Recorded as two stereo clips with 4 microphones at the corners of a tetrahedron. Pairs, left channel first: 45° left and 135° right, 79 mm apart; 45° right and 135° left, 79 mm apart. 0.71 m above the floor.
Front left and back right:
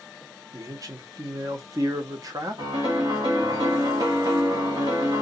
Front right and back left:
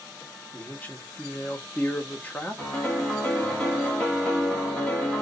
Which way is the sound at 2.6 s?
130° right.